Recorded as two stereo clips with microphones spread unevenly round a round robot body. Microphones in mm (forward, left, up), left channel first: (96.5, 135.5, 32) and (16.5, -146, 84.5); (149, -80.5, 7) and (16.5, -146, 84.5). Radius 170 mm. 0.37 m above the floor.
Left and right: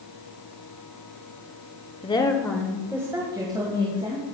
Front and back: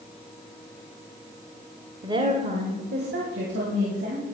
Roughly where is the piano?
I don't hear a piano.